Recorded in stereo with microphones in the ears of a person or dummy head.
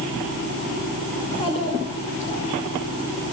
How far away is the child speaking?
About 3 m.